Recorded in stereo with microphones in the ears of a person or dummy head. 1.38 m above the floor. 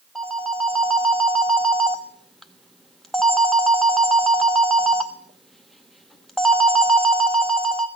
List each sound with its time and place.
0.1 s a phone ringing: centre (ahead or behind), 0.7 m